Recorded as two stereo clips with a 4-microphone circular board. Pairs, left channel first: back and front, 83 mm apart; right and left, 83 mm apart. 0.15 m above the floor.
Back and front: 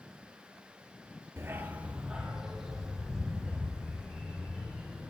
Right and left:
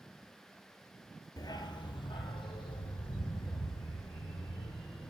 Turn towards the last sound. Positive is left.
turn(degrees=-95)